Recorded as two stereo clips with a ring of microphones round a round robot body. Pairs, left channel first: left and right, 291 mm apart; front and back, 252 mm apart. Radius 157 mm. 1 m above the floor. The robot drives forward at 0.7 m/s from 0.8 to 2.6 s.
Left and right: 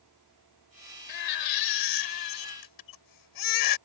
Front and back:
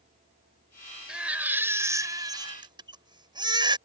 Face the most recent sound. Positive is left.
turn(degrees=105)